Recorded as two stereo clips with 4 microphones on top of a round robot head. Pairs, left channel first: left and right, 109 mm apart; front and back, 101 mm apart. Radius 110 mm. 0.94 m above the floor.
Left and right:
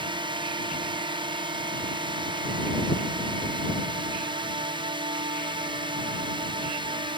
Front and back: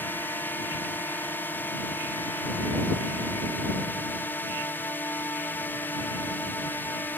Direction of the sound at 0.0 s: 65° right.